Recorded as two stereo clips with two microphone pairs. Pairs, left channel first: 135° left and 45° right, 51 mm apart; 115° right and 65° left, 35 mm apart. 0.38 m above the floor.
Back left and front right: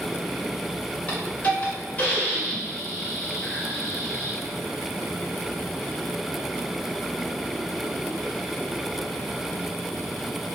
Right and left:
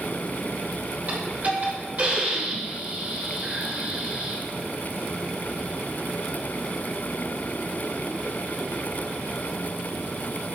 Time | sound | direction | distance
1.1 | a hiss | 85° left | 1.5 m